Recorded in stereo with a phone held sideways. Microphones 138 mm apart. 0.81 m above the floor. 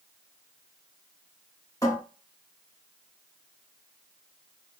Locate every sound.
1.8 s a cupboard door: 25° left (ahead or behind), 1.6 m